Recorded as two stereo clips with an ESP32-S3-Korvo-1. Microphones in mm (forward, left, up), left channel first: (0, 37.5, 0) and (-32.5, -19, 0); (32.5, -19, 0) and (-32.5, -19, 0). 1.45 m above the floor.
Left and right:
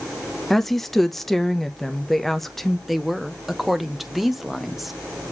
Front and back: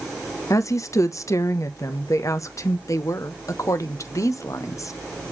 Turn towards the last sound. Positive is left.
turn(degrees=-30)